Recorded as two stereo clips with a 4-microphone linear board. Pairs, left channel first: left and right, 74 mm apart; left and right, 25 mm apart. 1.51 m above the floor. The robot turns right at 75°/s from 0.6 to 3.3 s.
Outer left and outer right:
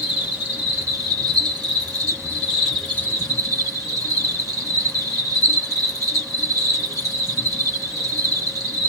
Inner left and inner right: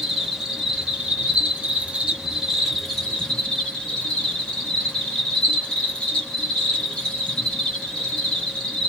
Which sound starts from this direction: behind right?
An insect, at 0.0 s.